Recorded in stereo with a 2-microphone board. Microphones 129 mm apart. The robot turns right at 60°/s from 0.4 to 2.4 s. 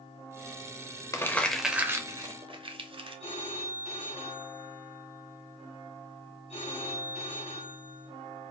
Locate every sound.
1.1 s crumpling: 25° left (ahead or behind), 0.7 m; by 3.2 s 45° right (ahead or behind), 0.7 m
3.2 s a phone ringing: 60° left (ahead or behind), 1.6 m